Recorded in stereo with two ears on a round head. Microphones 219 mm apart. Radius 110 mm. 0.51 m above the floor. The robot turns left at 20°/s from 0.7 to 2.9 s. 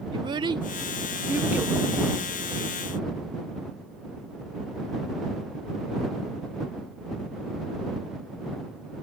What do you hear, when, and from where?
0.1 s a child speaking: 20° right (ahead or behind); by 1.8 s 5° right (ahead or behind)